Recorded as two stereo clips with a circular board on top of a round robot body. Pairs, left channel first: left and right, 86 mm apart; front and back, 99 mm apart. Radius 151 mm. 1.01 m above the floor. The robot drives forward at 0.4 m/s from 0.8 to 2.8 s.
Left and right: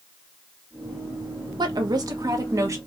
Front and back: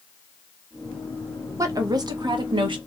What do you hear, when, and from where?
1.6 s a woman speaking: 125° right, 0.9 m; by 2.8 s 140° right, 1.3 m